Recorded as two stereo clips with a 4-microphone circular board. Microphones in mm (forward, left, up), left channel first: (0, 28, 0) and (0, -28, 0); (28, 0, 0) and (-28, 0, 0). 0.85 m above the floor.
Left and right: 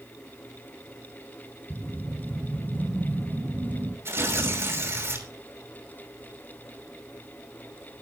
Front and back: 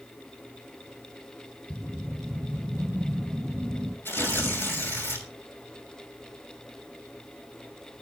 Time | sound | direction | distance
1.7 | a whoosh | 115° right | 1.7 m
4.0 | tearing paper | 50° right | 6 m